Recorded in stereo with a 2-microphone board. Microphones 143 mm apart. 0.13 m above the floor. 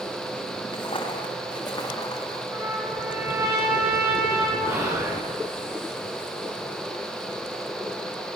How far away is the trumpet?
About 6 m.